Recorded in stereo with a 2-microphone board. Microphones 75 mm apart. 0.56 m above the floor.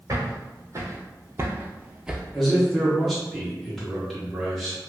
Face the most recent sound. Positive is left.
turn(degrees=5)  # may be behind; listen again after turning